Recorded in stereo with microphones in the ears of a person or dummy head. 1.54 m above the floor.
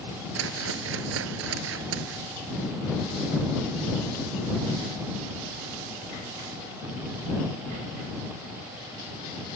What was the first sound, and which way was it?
A whoosh, 70° right (ahead or behind).